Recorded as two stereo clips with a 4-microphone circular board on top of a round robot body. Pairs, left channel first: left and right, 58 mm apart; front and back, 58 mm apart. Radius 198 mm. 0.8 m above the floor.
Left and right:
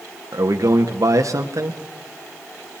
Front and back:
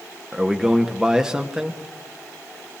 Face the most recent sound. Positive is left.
turn(degrees=-100)